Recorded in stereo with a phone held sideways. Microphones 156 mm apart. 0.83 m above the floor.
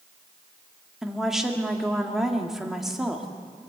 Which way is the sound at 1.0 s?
Centre (ahead or behind).